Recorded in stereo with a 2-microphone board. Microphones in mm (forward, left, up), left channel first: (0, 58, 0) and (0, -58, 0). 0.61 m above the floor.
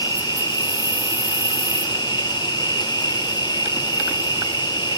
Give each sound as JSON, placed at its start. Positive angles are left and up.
{"t": 0.0, "sound": "an insect", "side_deg": 35, "distance_m": 1.7}